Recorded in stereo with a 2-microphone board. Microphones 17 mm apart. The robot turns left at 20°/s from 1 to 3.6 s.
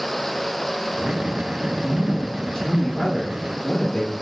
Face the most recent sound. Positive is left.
turn(degrees=25)  # may be behind; listen again after turning